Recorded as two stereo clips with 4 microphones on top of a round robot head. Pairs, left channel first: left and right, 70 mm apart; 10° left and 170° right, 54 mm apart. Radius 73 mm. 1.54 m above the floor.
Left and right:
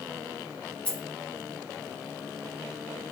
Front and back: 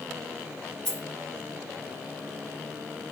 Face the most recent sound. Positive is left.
turn(degrees=35)